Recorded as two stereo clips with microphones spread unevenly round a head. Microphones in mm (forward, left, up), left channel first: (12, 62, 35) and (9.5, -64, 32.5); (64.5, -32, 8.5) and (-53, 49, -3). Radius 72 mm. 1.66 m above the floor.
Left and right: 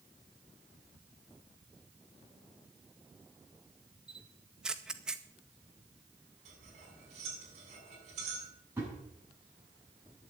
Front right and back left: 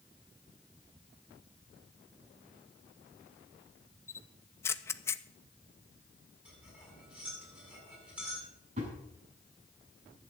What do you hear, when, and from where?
4.1 s a camera shutter: 10° right, 0.6 m
6.5 s cutlery clinking: 130° right, 7.5 m
8.8 s a thud: 165° right, 8 m